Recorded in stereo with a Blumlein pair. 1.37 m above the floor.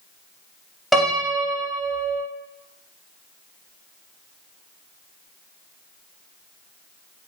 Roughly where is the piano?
Ahead.